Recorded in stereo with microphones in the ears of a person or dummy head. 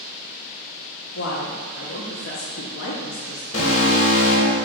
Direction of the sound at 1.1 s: 60° left (ahead or behind).